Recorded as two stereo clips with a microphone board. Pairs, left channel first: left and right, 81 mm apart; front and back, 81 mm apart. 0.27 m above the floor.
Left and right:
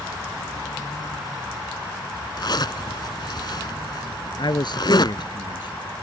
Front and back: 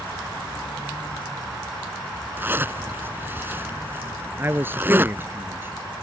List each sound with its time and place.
2.4 s a zipper: 115° left
4.4 s a man speaking: 115° left